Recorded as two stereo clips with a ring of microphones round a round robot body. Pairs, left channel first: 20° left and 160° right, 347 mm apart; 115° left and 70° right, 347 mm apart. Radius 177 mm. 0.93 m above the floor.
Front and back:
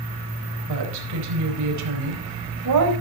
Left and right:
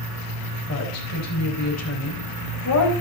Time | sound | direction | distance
0.7 | a woman speaking | 160° left | 4.5 m